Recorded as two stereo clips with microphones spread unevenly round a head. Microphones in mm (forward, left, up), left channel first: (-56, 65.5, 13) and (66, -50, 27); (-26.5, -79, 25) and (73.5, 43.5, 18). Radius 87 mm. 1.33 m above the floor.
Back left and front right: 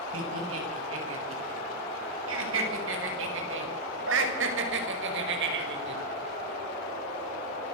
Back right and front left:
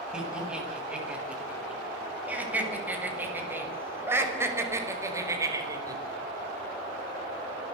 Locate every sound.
0.1 s laughter: 35° right, 8 m; by 6.0 s 20° right, 5 m